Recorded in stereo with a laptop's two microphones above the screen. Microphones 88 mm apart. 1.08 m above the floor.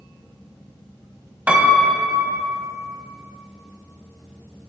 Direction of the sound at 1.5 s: 20° right (ahead or behind).